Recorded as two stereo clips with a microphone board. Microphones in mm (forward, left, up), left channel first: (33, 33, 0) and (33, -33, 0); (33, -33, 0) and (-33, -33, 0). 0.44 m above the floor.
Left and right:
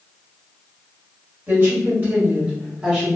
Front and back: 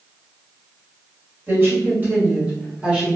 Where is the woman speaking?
135° right, 1.8 m; by 3.2 s 120° right, 1.1 m.